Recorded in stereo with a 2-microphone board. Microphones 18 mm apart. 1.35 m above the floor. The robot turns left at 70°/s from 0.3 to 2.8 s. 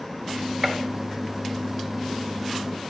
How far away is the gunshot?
About 0.7 m.